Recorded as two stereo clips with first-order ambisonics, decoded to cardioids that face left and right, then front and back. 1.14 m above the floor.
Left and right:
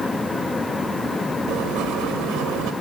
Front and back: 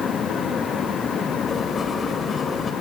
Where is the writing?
70° right, 1.9 m.